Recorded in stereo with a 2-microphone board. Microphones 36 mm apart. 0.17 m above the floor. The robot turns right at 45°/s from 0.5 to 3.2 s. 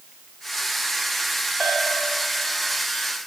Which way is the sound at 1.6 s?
5° left (ahead or behind).